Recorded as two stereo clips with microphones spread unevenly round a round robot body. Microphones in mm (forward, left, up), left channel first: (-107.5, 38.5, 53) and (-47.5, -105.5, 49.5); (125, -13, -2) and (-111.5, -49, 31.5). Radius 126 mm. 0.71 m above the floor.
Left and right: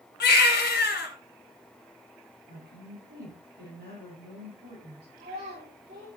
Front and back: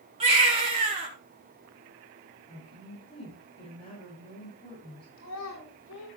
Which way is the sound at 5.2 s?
20° right.